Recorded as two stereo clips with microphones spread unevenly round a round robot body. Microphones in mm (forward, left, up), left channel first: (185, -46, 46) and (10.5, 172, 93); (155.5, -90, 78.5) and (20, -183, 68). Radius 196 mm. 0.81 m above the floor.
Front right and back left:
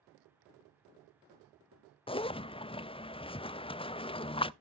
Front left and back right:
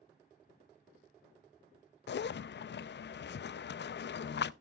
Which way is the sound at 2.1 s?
20° left.